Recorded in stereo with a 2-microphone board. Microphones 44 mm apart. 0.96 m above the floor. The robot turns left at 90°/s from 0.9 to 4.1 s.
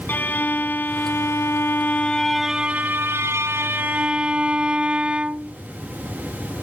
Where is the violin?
130° left; by 5.6 s 160° right.